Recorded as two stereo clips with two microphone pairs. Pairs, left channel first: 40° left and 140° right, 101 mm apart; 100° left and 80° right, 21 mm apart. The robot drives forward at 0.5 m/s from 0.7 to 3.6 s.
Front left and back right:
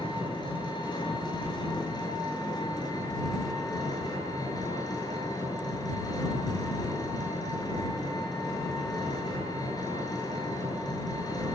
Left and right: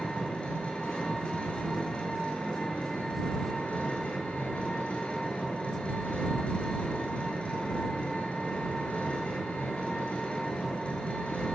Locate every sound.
0.0 s an engine running: 80° left, 8.5 m; by 11.6 s 90° left, 8.5 m